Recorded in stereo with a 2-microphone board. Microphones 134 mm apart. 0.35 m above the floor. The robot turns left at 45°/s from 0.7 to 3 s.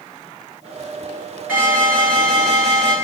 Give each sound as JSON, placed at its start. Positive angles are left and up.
{"t": 1.5, "sound": "an alarm", "azimuth_deg": -15, "distance_m": 5.0}